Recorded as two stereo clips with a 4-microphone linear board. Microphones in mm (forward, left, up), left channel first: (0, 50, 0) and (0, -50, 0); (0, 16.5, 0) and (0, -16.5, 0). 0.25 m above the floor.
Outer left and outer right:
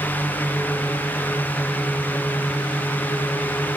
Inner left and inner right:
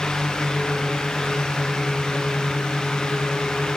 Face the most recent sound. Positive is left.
No sound to turn to.